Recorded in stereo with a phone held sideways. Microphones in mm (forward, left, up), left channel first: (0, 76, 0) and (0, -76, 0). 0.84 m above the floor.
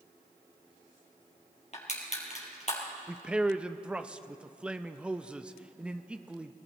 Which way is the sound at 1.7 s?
50° left (ahead or behind).